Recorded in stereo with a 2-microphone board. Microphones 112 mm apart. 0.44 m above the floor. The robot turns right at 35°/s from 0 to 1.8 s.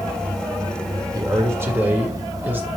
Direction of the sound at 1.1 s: 30° right (ahead or behind).